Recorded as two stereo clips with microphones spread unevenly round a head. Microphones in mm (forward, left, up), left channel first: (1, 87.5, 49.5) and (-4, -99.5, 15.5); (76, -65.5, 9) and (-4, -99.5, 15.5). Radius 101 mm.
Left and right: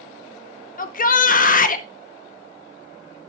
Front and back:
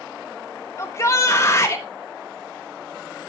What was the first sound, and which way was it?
A shout, 55° left.